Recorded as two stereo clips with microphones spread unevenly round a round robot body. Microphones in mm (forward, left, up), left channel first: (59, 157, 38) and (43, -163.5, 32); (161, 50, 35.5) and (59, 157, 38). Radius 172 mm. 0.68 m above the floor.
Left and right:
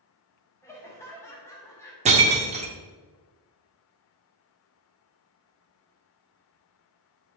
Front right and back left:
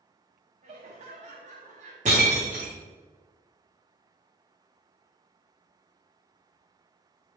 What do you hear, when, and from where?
0.6 s laughter: 170° left, 0.9 m
2.0 s breaking glass: 165° right, 0.8 m